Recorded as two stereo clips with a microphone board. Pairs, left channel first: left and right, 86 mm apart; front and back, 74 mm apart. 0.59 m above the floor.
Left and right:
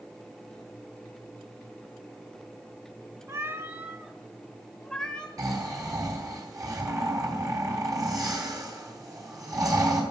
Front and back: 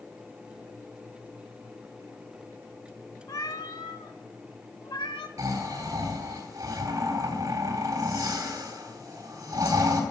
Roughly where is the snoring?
Behind right.